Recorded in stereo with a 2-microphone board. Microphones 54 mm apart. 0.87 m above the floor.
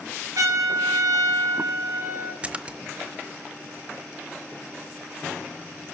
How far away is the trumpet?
About 5.5 m.